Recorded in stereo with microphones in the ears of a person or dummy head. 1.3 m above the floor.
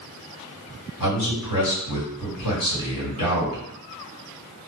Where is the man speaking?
75° left (ahead or behind), 1.8 m.